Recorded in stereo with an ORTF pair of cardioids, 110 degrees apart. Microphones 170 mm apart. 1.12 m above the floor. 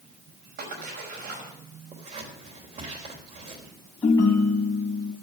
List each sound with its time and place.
0.6 s a splash: 65° right, 5.5 m
1.9 s scissors: 45° right, 3.5 m
4.0 s a ringtone: 20° left, 3 m